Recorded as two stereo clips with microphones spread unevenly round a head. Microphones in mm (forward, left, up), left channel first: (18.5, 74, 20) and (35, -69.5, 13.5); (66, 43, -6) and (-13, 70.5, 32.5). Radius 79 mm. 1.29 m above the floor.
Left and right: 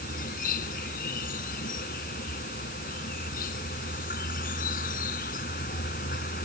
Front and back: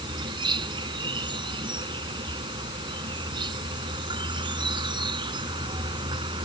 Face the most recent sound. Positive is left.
turn(degrees=135)